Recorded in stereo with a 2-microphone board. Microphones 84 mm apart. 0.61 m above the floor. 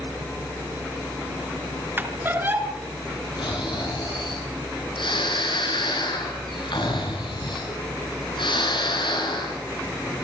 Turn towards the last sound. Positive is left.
turn(degrees=80)